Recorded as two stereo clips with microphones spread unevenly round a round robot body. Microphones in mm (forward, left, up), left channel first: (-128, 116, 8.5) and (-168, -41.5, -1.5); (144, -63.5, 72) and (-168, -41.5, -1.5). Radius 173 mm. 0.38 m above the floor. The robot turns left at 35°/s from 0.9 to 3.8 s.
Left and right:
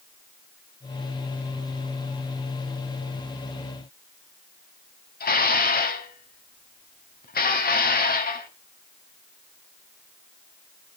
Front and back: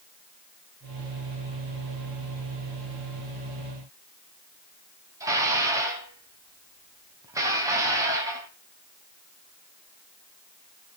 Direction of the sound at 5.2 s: 100° left.